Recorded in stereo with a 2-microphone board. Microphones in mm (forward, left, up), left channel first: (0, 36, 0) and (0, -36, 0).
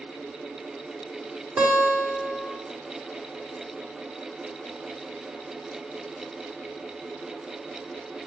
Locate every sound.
1.6 s a guitar: 10° right (ahead or behind), 1.4 m